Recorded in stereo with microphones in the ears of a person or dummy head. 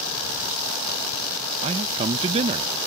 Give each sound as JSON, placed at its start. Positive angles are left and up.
{"t": 1.6, "sound": "a man speaking", "side_deg": -35}